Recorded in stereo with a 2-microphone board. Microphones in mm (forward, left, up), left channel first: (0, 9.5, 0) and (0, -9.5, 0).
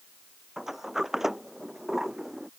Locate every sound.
0.6 s a sliding door: 20° right (ahead or behind)